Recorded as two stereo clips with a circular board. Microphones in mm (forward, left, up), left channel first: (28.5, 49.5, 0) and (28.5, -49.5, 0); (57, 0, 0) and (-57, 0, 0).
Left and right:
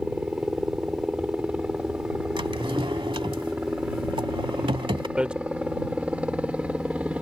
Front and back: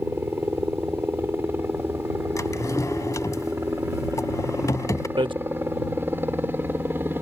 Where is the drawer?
60° right.